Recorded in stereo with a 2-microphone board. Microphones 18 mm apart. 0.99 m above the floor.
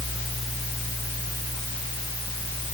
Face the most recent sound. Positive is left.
No sound to turn to.